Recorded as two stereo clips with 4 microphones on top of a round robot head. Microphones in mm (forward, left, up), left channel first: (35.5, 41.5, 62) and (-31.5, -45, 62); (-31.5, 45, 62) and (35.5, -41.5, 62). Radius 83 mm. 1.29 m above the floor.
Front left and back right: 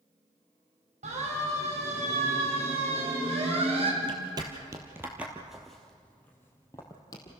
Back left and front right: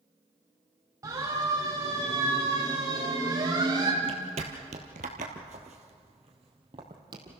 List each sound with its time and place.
1.0 s a siren: 115° right, 6 m; by 3.9 s 105° right, 3.5 m
4.0 s footsteps: 90° right, 1.9 m; by 7.4 s straight ahead, 2.5 m